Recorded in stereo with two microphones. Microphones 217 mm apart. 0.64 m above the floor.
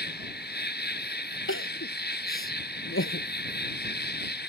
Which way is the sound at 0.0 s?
45° left (ahead or behind).